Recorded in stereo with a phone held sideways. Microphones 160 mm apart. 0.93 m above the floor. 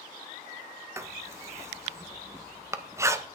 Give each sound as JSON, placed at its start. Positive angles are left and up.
{"t": 1.0, "sound": "writing", "side_deg": -20, "distance_m": 0.6}